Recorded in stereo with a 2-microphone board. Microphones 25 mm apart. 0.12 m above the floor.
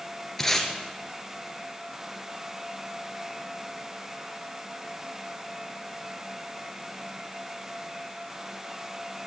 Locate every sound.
0.4 s tape being pulled: 10° left (ahead or behind), 1.9 m